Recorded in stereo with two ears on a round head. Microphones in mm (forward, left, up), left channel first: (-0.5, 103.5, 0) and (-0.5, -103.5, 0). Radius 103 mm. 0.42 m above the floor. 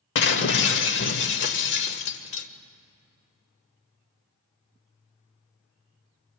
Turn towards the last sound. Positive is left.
turn(degrees=55)  # may be behind; listen again after turning